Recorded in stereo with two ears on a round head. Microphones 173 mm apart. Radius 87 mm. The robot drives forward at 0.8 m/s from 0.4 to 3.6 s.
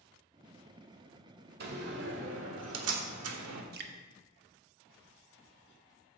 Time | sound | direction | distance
1.6 | a door slam | 50° right (ahead or behind) | 1.9 m
3.7 | dripping | 50° right (ahead or behind) | 1.1 m